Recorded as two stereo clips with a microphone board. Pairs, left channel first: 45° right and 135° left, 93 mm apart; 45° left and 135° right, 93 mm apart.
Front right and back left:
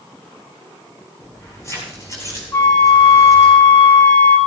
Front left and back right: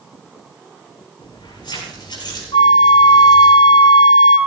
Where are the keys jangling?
15° left, 8.5 m; by 3.5 s 5° left, 8.5 m.